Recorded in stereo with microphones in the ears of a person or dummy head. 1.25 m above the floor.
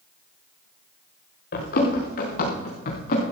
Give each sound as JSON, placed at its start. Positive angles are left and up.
{"t": 1.5, "sound": "running footsteps", "side_deg": 55, "distance_m": 5.5}